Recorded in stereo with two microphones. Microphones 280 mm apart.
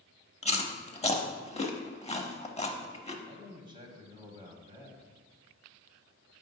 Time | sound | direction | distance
0.4 | chewing | 20° left (ahead or behind) | 0.6 m
3.2 | a man speaking | 15° right (ahead or behind) | 1.1 m